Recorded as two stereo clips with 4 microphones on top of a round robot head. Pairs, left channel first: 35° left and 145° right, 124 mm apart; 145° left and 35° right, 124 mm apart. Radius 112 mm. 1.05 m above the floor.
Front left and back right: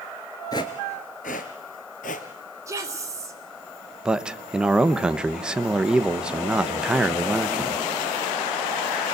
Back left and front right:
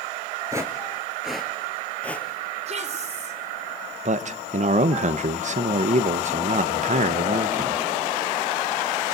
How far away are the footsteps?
About 1.0 m.